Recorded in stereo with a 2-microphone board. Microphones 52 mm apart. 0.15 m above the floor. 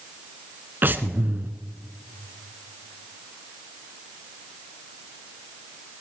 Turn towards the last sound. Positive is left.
turn(degrees=-45)  # may be behind; listen again after turning